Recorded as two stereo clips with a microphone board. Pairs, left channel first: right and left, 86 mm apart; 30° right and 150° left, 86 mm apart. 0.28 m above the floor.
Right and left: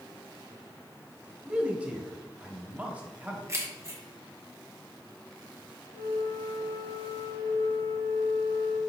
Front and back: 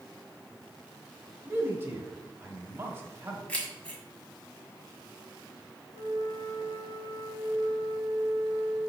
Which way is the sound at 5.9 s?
70° right.